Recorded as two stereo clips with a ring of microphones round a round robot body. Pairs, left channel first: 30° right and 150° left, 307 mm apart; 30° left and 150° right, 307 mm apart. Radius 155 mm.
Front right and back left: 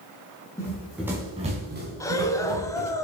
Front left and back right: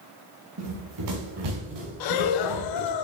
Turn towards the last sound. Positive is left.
turn(degrees=50)